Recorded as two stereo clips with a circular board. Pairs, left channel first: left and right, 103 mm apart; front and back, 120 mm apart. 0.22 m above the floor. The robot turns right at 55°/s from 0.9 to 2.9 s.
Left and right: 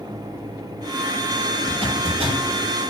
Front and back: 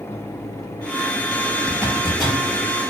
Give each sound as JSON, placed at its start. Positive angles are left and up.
{"t": 1.7, "sound": "a zipper", "azimuth_deg": -120, "distance_m": 5.0}